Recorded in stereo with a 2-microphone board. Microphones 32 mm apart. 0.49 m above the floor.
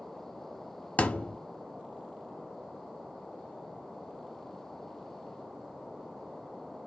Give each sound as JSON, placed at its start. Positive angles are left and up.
{"t": 1.0, "sound": "a thud", "side_deg": 60, "distance_m": 0.6}